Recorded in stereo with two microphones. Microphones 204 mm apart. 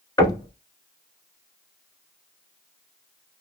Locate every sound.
0.2 s knocking: 15° left (ahead or behind), 0.9 m